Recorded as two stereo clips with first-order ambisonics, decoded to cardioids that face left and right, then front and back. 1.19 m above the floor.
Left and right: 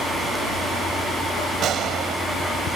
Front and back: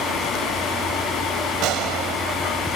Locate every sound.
1.6 s a gunshot: 145° right